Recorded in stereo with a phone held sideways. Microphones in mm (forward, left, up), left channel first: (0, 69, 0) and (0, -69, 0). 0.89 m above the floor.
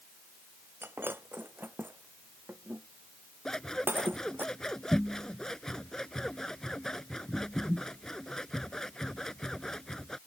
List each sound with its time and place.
0.8 s breaking glass: 15° right (ahead or behind)
3.5 s scissors: 5° left (ahead or behind)